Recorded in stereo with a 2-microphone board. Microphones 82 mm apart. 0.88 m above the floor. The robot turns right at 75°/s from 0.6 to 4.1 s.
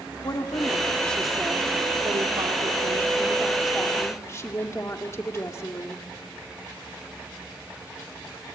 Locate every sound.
0.2 s a woman speaking: 130° left, 2 m; by 6.0 s 35° left, 2 m